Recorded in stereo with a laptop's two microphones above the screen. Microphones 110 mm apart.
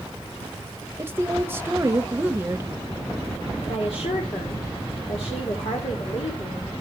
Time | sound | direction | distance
1.0 | a woman speaking | 20° right (ahead or behind) | 1.0 m
3.6 | a woman speaking | 65° left (ahead or behind) | 2.5 m